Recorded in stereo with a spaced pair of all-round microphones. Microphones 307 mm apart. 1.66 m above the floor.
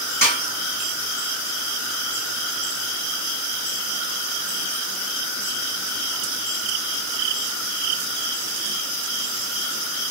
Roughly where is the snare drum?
Left.